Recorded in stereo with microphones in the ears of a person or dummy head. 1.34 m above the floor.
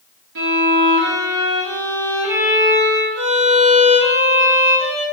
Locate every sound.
0.3 s a violin: 55° right (ahead or behind), 0.9 m